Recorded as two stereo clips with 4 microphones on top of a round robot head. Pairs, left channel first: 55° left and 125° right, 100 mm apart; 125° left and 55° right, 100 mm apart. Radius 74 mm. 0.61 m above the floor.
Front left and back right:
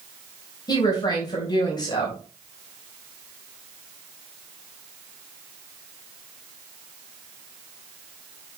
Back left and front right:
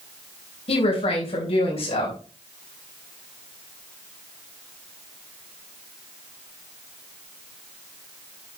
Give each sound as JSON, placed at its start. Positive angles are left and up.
{"t": 0.7, "sound": "a woman speaking", "azimuth_deg": 105, "distance_m": 3.5}